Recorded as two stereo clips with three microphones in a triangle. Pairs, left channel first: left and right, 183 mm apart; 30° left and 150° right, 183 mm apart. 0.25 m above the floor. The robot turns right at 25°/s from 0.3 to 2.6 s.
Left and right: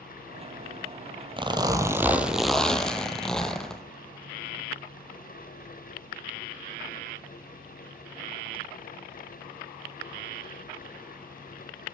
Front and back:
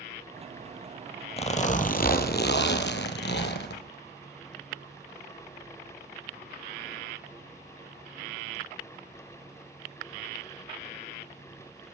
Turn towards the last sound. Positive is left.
turn(degrees=5)